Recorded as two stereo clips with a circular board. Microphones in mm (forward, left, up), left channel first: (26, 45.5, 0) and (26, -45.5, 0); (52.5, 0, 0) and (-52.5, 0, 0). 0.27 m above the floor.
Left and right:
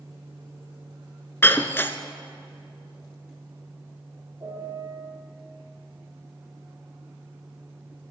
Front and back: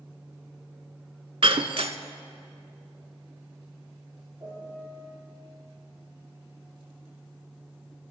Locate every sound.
1.4 s breaking glass: 155° left, 0.5 m
4.4 s a piano: 135° right, 4.5 m